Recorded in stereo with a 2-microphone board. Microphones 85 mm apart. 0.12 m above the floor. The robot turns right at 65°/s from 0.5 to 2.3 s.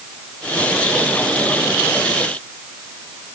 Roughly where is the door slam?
I don't hear a door slam.